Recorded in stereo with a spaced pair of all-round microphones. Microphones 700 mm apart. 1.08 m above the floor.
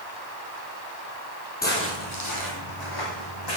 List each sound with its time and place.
1.6 s footsteps: 15° left (ahead or behind), 1.9 m; by 3.6 s 35° left (ahead or behind), 3.5 m